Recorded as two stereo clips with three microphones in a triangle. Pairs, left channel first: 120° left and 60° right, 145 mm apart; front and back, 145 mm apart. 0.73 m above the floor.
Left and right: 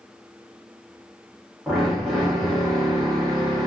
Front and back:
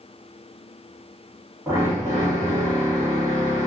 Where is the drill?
145° right, 1.1 m.